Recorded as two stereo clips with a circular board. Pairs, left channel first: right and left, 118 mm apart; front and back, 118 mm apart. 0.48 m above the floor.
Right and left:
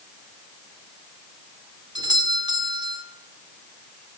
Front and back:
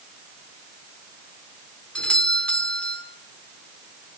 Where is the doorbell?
75° left, 2.0 m.